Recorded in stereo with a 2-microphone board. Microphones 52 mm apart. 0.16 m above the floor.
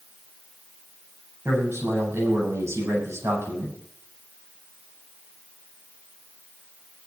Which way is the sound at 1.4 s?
65° right (ahead or behind).